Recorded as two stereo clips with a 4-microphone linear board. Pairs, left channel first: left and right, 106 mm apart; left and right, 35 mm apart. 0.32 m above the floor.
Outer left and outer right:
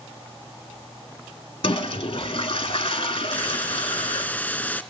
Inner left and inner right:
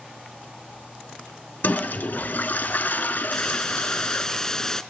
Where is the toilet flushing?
60° left (ahead or behind), 0.7 m.